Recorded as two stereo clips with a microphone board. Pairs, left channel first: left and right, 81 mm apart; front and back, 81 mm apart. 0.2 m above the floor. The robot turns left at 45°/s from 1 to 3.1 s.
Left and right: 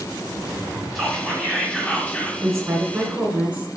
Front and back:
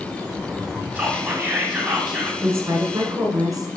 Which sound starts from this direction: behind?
Whispering, at 0.9 s.